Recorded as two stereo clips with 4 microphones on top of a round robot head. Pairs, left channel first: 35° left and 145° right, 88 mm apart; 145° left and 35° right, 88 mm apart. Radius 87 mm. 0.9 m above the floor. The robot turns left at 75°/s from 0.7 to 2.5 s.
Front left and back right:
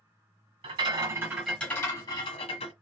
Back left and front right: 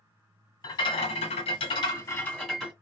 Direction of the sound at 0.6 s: 175° right.